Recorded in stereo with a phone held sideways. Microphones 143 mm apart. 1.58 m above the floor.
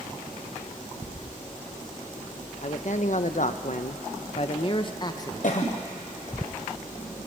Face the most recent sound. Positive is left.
turn(degrees=65)  # may be behind; listen again after turning